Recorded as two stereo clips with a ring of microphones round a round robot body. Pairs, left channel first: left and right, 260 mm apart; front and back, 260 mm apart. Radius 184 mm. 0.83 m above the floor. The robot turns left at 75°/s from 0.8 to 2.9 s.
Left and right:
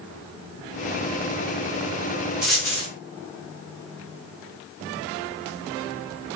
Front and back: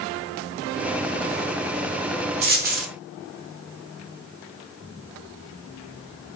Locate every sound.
2.4 s a dropped coin: 175° right, 0.5 m; by 2.9 s 150° left, 0.5 m